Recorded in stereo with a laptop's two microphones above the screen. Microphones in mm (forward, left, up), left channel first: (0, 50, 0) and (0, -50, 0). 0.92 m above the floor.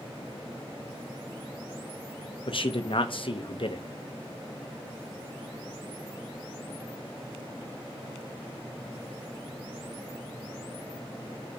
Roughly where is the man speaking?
Left.